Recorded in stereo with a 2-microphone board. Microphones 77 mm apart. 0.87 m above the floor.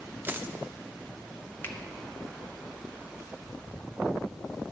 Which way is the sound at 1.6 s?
30° left (ahead or behind).